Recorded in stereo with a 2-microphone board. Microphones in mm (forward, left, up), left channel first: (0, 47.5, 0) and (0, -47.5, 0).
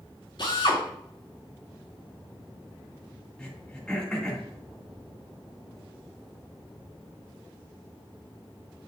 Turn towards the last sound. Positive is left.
turn(degrees=10)  # may be behind; listen again after turning